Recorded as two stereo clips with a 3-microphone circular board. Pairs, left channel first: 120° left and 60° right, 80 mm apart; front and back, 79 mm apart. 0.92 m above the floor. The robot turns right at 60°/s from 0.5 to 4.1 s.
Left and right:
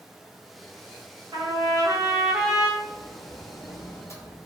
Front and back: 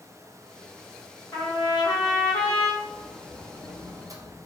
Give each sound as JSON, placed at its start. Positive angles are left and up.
{"t": 1.3, "sound": "a trumpet", "azimuth_deg": -45, "distance_m": 0.9}
{"t": 2.8, "sound": "a sliding door", "azimuth_deg": 80, "distance_m": 0.5}